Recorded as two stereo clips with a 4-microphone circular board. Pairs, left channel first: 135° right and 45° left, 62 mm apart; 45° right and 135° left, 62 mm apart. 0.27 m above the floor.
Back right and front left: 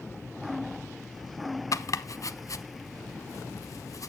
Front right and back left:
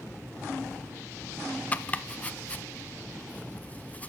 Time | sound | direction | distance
1.7 | chopping | 110° right | 0.6 m